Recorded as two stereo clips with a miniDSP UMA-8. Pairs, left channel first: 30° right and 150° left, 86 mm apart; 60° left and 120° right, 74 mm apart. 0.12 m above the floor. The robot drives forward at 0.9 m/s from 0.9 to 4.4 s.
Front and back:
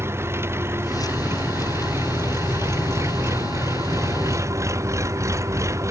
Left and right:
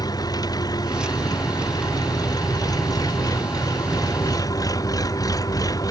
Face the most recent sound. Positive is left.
turn(degrees=95)